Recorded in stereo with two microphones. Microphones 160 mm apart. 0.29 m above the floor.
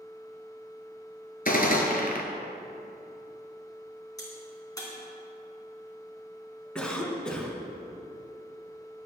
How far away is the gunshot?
About 1.6 m.